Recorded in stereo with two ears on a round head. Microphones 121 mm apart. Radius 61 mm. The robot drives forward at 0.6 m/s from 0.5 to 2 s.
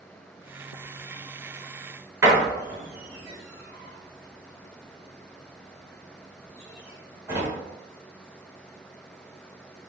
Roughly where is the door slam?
Right.